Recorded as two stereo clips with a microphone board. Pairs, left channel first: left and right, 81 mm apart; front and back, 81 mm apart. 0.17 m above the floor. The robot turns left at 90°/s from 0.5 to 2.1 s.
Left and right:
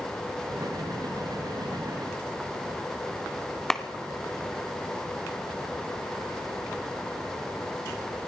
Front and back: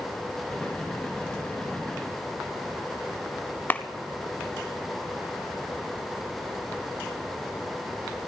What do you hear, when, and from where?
3.7 s a clap: 10° left, 0.8 m